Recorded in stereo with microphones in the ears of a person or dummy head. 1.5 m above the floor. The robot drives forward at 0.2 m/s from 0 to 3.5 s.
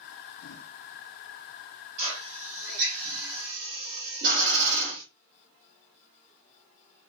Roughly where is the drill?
Right.